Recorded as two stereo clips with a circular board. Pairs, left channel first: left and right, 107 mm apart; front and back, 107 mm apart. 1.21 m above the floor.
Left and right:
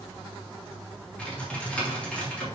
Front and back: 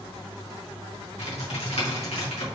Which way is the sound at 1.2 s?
10° left.